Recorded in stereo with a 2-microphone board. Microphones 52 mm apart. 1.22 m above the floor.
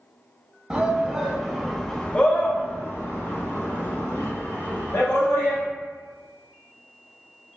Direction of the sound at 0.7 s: 20° right (ahead or behind).